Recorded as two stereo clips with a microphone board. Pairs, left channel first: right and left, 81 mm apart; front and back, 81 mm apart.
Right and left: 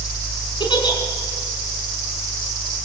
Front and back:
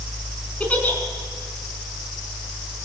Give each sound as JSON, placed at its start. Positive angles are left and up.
{"t": 0.6, "sound": "a giggle", "azimuth_deg": -70, "distance_m": 4.5}